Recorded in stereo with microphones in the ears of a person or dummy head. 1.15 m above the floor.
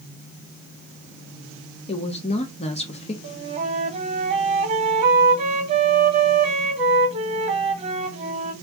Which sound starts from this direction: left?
A woman speaking, at 1.9 s.